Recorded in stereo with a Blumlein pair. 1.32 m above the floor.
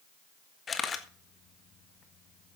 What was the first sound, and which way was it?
A camera shutter, 20° left.